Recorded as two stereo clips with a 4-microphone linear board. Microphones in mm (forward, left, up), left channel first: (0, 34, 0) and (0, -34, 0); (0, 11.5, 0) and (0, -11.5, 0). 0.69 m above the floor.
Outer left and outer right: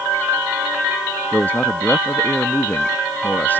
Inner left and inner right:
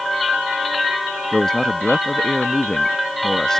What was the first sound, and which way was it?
A man speaking, 25° left (ahead or behind).